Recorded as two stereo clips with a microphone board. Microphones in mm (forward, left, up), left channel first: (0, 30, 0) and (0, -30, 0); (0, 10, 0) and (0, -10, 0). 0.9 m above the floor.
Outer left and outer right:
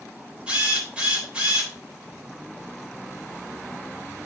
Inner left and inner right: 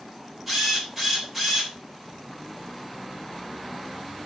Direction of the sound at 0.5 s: 20° right (ahead or behind).